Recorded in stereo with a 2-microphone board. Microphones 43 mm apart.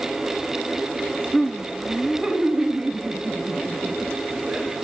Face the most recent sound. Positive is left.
turn(degrees=-30)  # may be behind; listen again after turning